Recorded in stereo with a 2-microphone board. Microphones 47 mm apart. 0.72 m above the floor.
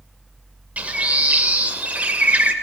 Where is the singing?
No singing in this recording.